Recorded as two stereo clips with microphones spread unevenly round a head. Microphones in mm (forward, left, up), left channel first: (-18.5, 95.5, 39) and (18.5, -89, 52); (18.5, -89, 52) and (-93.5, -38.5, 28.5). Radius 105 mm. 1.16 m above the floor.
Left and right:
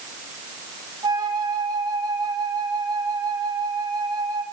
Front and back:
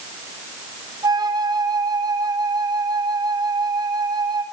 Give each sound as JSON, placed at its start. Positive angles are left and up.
{"t": 1.0, "sound": "a flute", "azimuth_deg": -150, "distance_m": 3.5}